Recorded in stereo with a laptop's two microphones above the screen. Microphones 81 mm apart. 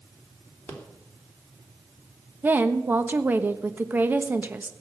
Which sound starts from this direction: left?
A rattle, at 0.7 s.